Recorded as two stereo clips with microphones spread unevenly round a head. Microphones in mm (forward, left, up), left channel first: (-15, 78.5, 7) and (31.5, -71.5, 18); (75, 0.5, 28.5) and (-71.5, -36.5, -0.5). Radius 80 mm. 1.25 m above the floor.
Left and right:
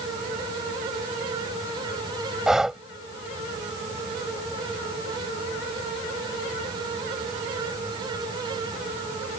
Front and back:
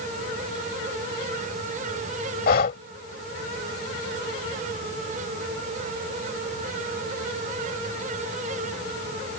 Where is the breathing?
10° left.